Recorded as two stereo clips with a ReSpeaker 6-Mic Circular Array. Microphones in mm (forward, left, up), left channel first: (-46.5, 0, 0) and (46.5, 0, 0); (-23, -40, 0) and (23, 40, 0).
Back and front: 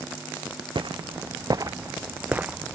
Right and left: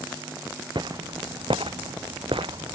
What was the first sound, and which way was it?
Footsteps, 30° left.